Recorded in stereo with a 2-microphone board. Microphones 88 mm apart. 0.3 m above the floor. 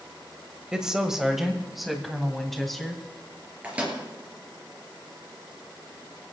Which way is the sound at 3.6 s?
15° right (ahead or behind).